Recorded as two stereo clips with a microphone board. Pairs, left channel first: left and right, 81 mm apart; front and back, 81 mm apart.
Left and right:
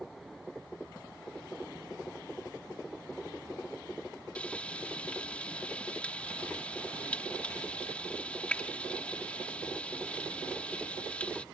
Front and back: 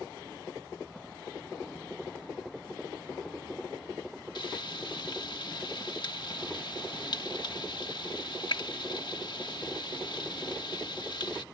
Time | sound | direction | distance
4.3 | frying | 15° left | ?